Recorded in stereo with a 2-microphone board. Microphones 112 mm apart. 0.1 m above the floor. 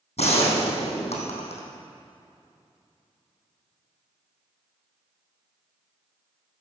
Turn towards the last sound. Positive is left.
turn(degrees=75)  # may be behind; listen again after turning